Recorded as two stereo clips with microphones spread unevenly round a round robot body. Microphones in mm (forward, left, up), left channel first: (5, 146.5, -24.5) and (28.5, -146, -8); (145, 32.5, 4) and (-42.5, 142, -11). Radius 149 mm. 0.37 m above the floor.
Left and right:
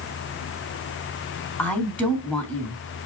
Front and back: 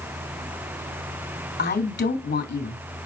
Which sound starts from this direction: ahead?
A woman speaking, at 1.6 s.